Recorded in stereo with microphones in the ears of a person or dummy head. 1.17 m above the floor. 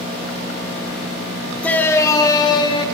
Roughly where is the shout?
Centre.